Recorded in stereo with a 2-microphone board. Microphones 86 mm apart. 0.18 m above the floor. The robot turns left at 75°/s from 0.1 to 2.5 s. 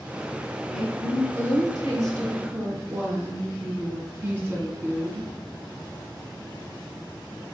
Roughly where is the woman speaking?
Ahead.